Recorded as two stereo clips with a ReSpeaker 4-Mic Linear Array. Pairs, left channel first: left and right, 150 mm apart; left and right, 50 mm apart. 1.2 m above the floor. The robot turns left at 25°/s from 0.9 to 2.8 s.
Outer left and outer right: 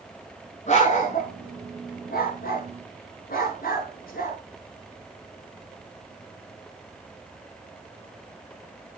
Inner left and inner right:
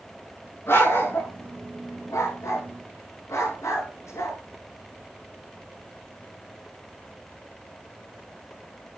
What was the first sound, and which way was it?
A dog barking, 50° left (ahead or behind).